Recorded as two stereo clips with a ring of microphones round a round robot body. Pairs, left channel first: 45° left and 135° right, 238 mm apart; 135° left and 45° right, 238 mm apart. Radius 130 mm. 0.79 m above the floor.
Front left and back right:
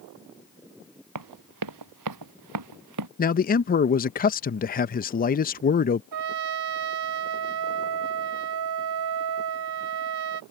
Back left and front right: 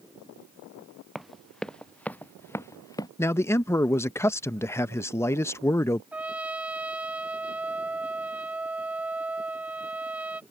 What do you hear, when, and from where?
1.1 s running footsteps: 135° right; by 3.1 s 150° right
3.2 s a man speaking: 60° left
6.1 s a trumpet: 130° right